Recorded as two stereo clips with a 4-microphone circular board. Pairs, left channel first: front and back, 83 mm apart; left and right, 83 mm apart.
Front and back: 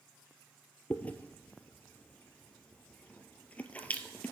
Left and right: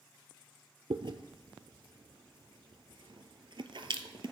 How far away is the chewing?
About 0.6 m.